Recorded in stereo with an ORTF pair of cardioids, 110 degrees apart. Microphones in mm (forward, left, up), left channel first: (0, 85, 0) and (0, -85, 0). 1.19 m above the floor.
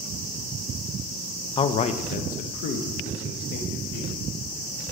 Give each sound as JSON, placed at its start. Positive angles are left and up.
{"t": 1.6, "sound": "a man speaking", "azimuth_deg": 30, "distance_m": 0.5}